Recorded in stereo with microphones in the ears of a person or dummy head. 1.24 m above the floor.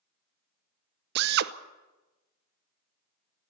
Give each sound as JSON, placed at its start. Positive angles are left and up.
{"t": 1.1, "sound": "a drill", "side_deg": -60, "distance_m": 0.8}